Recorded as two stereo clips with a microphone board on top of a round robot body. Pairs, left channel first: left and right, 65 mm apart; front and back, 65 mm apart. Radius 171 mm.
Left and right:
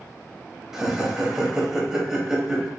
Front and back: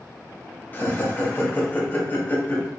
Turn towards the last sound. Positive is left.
turn(degrees=-15)